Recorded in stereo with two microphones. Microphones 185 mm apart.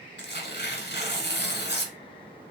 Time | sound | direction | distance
0.2 | tearing paper | 65° left (ahead or behind) | 0.8 m